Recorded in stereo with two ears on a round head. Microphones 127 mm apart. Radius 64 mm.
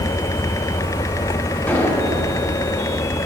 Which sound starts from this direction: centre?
An explosion, at 1.7 s.